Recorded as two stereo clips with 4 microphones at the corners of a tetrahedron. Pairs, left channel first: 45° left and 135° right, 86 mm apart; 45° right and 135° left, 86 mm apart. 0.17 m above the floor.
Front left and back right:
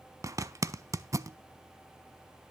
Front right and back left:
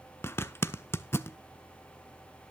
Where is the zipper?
95° right, 0.5 m.